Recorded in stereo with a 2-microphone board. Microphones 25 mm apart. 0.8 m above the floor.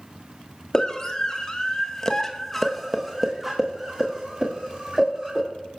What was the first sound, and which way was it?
A scream, 30° left (ahead or behind).